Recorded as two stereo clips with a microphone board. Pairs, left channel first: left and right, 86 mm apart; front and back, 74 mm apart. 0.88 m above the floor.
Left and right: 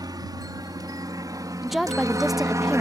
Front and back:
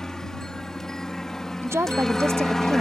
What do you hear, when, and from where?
0.0 s a helicopter: 80° right
1.6 s a woman speaking: straight behind